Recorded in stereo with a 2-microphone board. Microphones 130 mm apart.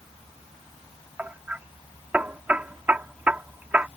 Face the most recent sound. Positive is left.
turn(degrees=-10)  # may be behind; listen again after turning